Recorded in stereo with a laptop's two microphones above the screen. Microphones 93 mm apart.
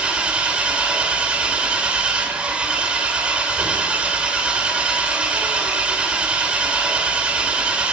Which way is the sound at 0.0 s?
10° right (ahead or behind).